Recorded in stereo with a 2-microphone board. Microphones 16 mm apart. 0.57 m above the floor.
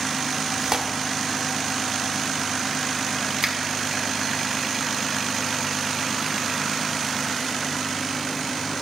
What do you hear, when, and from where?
0.6 s tearing paper: 45° right (ahead or behind), 0.8 m
3.4 s a finger snap: 35° right (ahead or behind), 0.9 m